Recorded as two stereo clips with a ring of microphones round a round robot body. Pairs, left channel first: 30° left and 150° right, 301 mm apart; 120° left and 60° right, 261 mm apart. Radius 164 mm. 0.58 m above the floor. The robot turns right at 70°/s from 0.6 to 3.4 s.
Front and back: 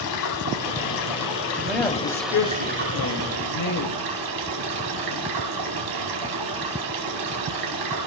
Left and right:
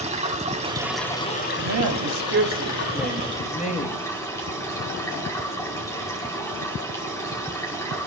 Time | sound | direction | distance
0.0 | running water | 5° left | 4.5 m
1.6 | a woman speaking | 70° right | 3 m